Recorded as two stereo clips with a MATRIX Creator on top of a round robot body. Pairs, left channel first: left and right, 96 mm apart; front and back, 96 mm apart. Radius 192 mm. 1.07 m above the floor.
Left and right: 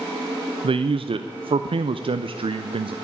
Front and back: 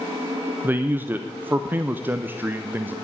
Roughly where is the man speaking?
Right.